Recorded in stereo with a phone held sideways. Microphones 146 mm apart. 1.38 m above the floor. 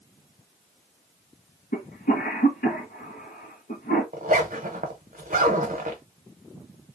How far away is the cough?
About 1.5 m.